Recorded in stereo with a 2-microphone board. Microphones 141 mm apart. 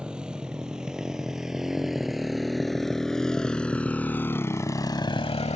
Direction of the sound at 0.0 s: 5° right (ahead or behind).